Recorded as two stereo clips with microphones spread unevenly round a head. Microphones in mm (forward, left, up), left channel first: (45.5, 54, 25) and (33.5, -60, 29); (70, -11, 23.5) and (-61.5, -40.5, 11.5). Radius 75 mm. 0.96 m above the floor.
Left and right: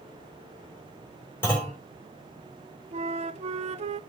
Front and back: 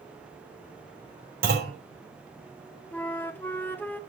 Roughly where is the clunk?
Behind.